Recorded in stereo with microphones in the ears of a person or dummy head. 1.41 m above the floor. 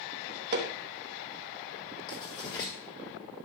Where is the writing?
25° left (ahead or behind), 1.9 m.